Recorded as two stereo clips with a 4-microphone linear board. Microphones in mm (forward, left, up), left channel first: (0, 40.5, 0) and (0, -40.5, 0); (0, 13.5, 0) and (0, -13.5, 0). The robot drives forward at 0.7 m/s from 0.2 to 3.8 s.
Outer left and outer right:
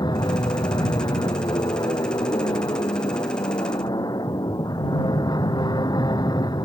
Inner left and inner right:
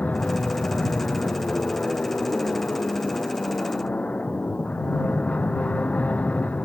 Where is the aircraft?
60° left (ahead or behind).